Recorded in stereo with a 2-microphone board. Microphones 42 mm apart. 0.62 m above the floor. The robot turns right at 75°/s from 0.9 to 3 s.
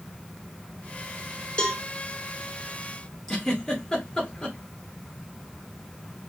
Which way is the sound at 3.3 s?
10° left (ahead or behind).